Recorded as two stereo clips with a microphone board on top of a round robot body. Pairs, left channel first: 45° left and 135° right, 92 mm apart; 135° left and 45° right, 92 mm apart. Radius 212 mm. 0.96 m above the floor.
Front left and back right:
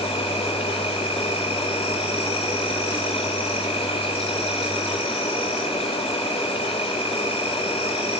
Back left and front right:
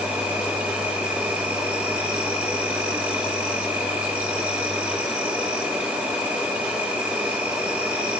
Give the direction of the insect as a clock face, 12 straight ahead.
11 o'clock.